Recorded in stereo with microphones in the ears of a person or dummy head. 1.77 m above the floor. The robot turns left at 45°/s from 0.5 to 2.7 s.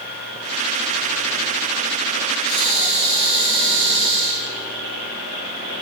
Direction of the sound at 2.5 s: 80° right.